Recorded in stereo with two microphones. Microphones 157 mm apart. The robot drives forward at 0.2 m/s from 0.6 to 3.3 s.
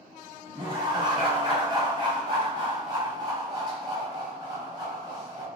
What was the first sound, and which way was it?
Laughter, 35° right (ahead or behind).